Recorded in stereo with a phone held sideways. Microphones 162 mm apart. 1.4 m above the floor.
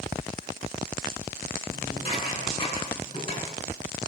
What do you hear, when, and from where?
1.7 s dishes clattering: 35° left (ahead or behind), 9.5 m